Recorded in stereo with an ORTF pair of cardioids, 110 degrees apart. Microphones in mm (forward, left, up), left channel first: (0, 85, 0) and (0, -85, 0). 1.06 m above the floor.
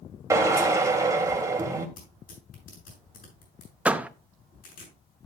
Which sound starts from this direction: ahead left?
Tearing paper, at 2.0 s.